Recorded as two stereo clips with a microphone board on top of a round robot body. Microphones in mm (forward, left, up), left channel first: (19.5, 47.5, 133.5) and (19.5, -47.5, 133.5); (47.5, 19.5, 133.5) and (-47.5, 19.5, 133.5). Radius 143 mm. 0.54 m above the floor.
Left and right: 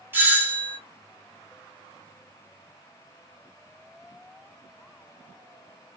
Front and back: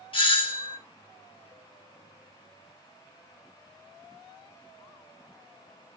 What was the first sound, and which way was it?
A doorbell, 25° right.